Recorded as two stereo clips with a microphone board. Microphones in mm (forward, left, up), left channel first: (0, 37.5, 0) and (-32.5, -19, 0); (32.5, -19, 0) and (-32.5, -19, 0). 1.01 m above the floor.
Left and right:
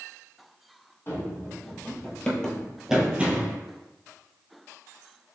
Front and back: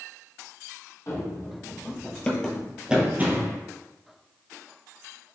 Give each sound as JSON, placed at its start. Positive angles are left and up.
{"t": 1.1, "sound": "running footsteps", "azimuth_deg": 15, "distance_m": 1.7}